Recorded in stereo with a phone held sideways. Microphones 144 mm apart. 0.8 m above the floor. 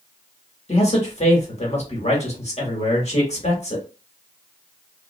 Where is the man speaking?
50° left (ahead or behind), 1.2 m.